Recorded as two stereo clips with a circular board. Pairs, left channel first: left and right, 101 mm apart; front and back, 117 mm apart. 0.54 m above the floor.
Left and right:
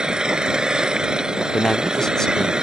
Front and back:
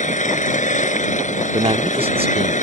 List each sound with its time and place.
0.0 s an engine running: 5° right
1.5 s a man speaking: 170° left